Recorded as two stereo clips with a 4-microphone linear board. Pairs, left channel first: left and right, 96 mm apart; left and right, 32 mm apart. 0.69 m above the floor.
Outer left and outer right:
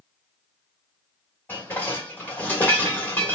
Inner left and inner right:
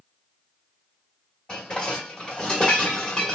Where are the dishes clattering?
20° left (ahead or behind), 1.5 m.